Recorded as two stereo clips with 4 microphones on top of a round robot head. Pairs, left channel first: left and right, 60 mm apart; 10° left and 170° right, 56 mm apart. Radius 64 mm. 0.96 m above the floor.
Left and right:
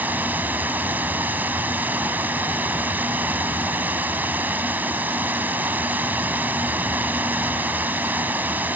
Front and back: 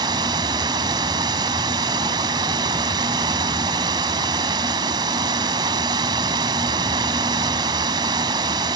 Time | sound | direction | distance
0.0 | running water | 160° right | ?